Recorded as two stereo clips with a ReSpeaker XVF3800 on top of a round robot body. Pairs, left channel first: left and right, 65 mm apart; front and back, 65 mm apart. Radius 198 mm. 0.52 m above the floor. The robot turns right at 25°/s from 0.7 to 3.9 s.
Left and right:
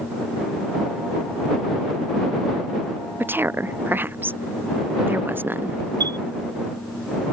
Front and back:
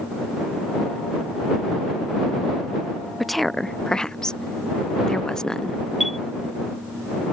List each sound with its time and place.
3.2 s a woman speaking: 90° right; by 5.8 s 75° right
6.0 s a chime: 90° right